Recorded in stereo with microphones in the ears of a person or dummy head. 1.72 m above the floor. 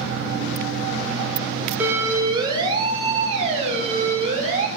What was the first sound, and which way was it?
A siren, 15° right (ahead or behind).